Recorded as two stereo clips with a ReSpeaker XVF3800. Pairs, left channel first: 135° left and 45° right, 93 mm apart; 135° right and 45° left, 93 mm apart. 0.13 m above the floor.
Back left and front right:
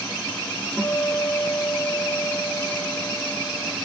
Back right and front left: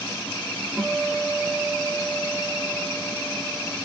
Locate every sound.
0.8 s a guitar: 80° left, 0.8 m